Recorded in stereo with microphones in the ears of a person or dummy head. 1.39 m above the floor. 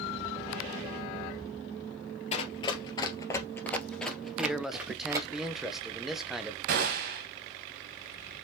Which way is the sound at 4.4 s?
Centre (ahead or behind).